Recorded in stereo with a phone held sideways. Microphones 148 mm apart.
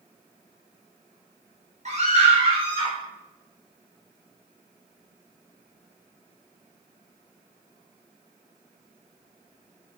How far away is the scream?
About 4.5 m.